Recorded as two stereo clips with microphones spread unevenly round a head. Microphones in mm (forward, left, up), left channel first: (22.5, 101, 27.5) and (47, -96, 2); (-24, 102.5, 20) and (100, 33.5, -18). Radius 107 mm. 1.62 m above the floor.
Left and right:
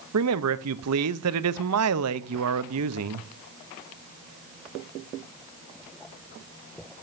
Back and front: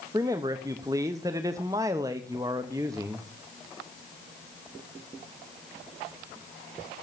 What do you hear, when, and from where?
0.1 s a man speaking: 110° right, 0.6 m